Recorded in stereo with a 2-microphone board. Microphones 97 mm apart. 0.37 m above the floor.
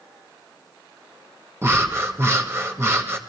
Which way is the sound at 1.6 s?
30° right (ahead or behind).